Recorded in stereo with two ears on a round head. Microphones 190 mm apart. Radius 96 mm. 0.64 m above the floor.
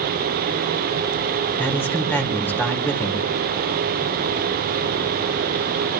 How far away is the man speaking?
About 1.9 m.